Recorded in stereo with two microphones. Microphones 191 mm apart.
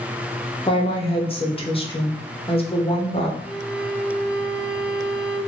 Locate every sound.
0.7 s a woman speaking: 30° left (ahead or behind), 0.8 m
3.4 s a violin: 5° right (ahead or behind), 1.9 m